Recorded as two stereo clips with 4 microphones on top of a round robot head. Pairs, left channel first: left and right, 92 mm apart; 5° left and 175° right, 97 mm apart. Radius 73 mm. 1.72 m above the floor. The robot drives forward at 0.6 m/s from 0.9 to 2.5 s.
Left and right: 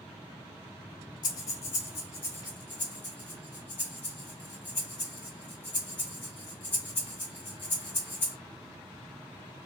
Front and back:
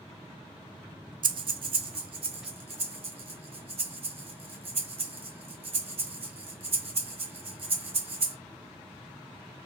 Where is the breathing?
150° left, 0.6 m; by 8.4 s 165° left, 1.3 m.